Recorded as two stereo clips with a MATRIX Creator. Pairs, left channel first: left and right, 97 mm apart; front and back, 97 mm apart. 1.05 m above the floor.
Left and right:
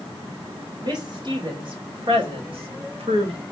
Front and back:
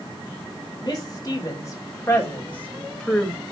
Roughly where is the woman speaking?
Ahead right.